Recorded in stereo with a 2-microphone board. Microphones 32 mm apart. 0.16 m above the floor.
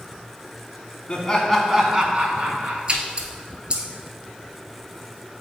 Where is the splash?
35° right (ahead or behind), 0.9 m.